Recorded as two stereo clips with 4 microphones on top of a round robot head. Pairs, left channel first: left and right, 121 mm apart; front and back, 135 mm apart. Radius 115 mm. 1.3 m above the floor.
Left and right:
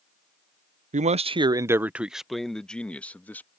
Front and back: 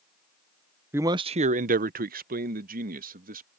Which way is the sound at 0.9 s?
105° right.